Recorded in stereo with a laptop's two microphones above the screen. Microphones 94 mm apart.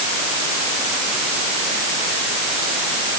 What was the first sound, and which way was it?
Only background noise.